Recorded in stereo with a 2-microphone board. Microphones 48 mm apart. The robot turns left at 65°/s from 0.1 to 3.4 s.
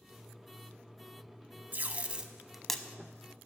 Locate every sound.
1.7 s tape being pulled: 40° right (ahead or behind), 0.6 m; by 2.8 s 15° left (ahead or behind), 0.6 m